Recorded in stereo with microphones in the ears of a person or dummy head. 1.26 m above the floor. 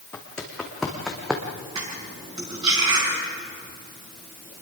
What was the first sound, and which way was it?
Footsteps, 10° left (ahead or behind).